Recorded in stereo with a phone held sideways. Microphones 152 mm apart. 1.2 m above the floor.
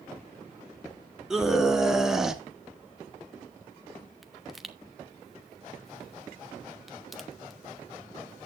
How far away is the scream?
About 3 m.